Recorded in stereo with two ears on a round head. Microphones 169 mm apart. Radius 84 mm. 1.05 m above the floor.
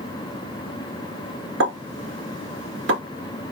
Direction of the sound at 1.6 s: 70° right (ahead or behind).